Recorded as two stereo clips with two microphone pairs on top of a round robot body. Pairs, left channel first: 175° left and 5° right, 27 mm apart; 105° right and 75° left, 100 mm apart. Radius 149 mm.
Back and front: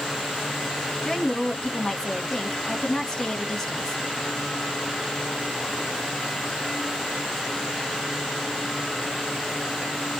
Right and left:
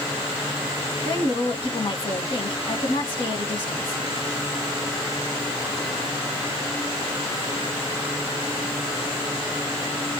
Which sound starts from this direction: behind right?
A woman speaking, at 1.1 s.